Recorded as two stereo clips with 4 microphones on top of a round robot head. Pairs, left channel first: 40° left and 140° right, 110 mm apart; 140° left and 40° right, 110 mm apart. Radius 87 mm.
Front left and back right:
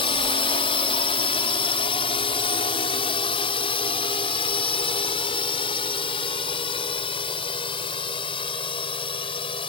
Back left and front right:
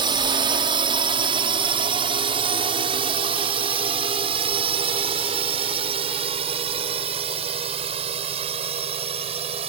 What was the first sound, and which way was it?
A drone, 5° left.